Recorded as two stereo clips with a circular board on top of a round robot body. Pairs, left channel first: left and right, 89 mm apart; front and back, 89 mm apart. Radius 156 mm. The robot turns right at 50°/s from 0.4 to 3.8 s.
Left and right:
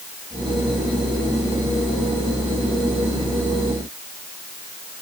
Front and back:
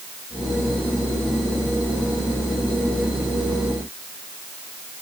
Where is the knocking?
I don't hear knocking.